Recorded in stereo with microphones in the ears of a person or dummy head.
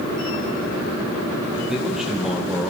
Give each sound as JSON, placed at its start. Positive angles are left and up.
{"t": 1.7, "sound": "a man speaking", "side_deg": -5, "distance_m": 0.9}